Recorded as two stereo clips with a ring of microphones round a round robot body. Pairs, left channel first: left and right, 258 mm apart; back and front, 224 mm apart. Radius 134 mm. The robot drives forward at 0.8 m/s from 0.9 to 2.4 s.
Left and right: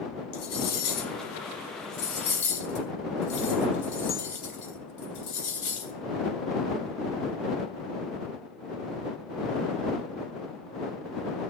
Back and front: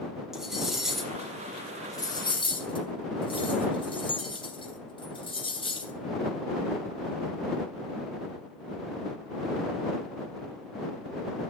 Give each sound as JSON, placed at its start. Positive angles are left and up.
{"t": 0.3, "sound": "cutlery clinking", "azimuth_deg": 90, "distance_m": 3.0}